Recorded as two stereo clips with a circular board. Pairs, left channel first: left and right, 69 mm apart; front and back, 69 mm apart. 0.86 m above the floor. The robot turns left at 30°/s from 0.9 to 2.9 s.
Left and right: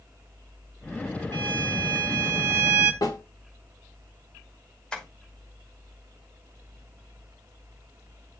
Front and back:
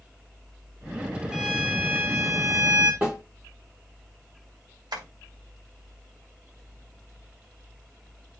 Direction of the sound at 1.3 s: 95° right.